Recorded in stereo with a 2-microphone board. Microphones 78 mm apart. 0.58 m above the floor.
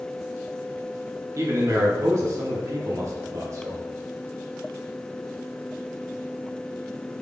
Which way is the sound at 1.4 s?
40° right (ahead or behind).